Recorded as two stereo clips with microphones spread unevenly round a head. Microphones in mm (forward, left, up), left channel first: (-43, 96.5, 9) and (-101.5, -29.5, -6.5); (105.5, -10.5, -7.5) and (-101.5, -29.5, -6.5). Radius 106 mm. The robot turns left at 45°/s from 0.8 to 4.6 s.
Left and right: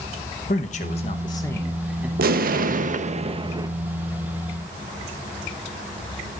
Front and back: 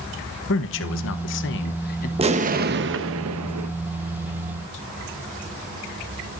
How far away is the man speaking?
About 0.9 m.